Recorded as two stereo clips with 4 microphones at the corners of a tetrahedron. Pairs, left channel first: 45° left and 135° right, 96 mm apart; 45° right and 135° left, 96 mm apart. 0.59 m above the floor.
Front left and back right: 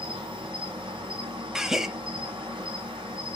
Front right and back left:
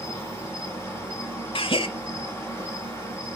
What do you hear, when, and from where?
0.0 s an insect: 110° right, 3 m
1.6 s a gasp: 50° right, 0.6 m